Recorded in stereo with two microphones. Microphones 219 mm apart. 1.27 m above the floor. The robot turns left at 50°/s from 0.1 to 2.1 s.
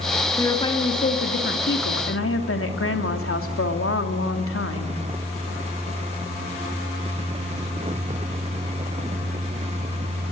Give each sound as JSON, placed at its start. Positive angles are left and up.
{"t": 0.4, "sound": "a woman speaking", "azimuth_deg": 170, "distance_m": 3.0}